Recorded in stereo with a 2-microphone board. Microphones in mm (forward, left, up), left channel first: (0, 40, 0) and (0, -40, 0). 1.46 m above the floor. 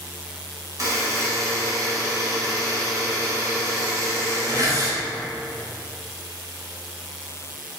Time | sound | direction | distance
0.8 | a buzzer | 50° right (ahead or behind) | 2.5 m